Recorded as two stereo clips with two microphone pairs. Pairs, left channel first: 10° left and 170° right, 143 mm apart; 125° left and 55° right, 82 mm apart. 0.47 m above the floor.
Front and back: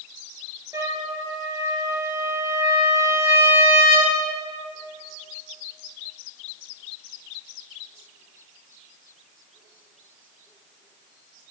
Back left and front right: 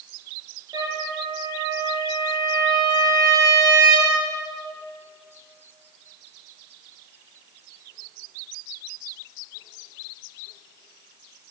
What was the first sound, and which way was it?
A trumpet, 100° right.